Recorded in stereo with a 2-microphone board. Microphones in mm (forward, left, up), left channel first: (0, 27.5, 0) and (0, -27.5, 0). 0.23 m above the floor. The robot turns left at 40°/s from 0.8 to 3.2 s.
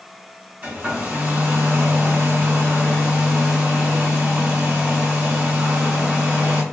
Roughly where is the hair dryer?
Ahead right.